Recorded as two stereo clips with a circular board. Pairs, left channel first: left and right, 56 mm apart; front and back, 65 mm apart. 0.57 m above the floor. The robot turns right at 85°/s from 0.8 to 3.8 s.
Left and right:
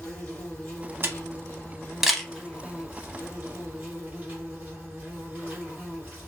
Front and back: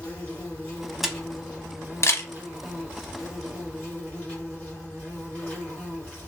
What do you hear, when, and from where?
0.0 s an insect: 55° left, 2 m; by 6.3 s 50° right, 2 m
1.0 s a camera shutter: 95° right, 0.7 m; by 2.3 s 15° left, 0.7 m